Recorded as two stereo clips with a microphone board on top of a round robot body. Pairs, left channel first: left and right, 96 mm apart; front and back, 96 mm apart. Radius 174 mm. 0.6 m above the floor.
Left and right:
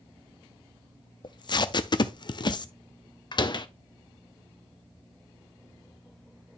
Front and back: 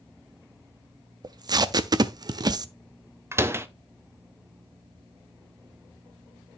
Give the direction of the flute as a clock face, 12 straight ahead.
I don't hear a flute.